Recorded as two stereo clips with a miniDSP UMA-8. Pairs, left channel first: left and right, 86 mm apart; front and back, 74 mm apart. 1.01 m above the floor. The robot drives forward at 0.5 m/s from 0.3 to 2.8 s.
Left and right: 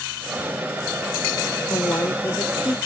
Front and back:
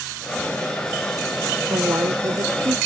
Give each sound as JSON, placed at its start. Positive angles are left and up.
{"t": 1.7, "sound": "a woman speaking", "azimuth_deg": 140}